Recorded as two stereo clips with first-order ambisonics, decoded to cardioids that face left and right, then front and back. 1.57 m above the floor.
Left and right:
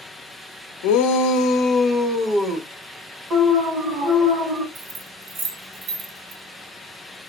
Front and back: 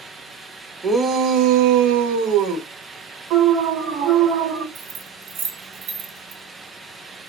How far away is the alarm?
About 1.4 m.